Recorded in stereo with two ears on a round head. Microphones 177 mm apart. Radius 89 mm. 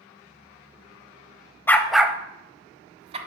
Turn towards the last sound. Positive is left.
turn(degrees=-30)  # may be behind; listen again after turning